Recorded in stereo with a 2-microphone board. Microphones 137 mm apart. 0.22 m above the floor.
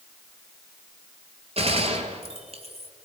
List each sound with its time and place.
1.6 s a gunshot: 50° right (ahead or behind), 1.6 m